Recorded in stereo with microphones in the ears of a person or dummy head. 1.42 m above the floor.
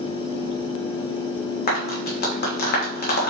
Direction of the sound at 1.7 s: 50° left (ahead or behind).